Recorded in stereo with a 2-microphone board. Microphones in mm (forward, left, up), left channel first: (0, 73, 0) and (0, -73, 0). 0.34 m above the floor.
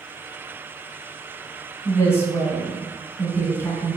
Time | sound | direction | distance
1.9 | a woman speaking | 20° left (ahead or behind) | 2.5 m